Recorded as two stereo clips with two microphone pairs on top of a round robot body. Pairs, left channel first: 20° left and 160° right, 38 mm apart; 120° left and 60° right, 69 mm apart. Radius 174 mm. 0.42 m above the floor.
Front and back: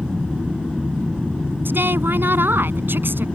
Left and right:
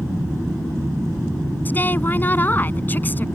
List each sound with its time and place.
1.6 s a woman speaking: 175° right